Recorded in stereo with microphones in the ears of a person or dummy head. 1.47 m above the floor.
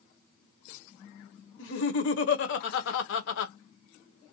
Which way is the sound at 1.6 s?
65° left (ahead or behind).